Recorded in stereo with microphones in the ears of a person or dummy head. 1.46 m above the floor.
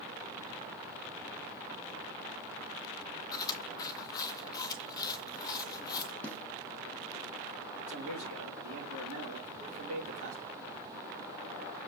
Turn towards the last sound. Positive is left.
turn(degrees=-50)  # may be behind; listen again after turning